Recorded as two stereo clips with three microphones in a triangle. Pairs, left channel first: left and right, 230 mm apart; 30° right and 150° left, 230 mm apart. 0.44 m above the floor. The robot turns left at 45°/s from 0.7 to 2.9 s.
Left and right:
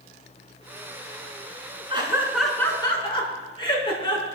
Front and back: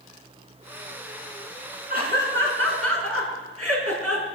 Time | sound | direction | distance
1.9 | laughter | 155° right | 4.5 m